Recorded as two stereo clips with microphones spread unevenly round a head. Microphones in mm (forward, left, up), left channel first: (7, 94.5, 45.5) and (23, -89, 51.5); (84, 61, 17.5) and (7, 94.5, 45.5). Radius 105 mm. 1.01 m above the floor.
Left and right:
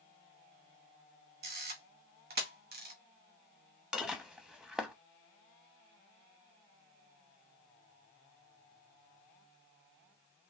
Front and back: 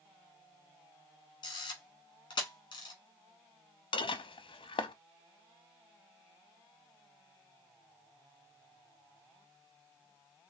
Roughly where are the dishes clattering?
Ahead.